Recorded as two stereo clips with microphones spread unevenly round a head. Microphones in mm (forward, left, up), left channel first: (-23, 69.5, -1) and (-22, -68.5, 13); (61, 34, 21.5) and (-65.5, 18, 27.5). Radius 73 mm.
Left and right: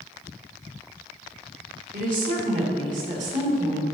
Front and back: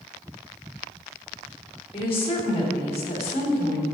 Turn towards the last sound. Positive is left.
turn(degrees=-40)